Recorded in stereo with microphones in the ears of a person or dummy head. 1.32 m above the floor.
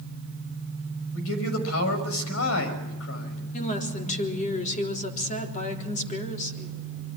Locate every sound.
1.1 s a man speaking: 80° left, 5.5 m
3.5 s a woman speaking: 40° left (ahead or behind), 3.5 m